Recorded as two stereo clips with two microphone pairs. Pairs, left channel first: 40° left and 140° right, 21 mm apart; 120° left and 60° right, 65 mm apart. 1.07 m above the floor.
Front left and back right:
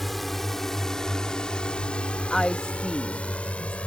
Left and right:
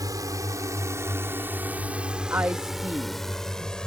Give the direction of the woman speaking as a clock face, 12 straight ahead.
12 o'clock.